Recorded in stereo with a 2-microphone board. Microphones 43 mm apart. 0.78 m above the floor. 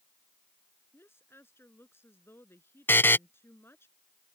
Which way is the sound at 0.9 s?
60° left (ahead or behind).